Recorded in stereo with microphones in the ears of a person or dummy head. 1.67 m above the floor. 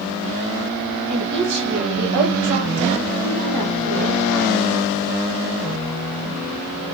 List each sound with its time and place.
1.1 s a woman speaking: 55° right (ahead or behind), 2.5 m